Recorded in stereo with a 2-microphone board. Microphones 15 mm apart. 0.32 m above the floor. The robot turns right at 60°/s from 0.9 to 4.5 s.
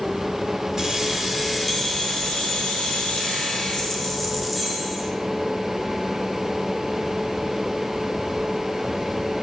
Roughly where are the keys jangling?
Ahead right.